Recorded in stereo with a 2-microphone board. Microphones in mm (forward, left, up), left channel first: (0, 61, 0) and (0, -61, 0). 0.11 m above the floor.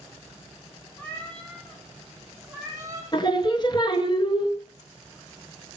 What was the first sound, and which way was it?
A cat meowing, 15° left (ahead or behind).